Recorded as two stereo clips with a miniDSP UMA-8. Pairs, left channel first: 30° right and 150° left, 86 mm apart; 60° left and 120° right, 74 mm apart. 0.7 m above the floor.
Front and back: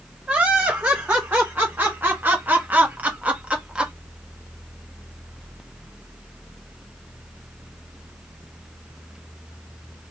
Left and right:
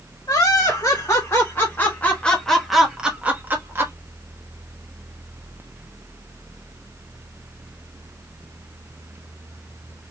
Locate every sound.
0.3 s laughter: 80° left, 1.9 m; by 3.9 s 135° right, 1.3 m